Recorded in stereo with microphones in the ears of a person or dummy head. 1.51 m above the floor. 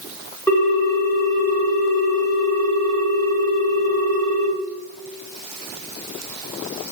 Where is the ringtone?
15° left (ahead or behind), 1.9 m.